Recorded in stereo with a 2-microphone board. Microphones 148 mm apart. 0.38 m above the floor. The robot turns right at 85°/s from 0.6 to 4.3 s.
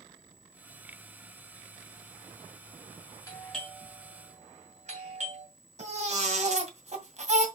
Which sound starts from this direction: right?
A baby crying, at 5.8 s.